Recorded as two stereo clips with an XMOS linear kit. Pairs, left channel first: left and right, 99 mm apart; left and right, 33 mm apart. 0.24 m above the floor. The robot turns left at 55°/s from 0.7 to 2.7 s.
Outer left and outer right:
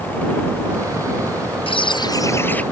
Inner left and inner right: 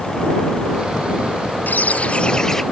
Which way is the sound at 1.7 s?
65° left.